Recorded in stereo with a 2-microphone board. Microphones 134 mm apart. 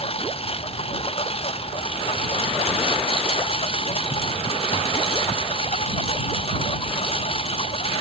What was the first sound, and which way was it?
A lawn mower, 45° left (ahead or behind).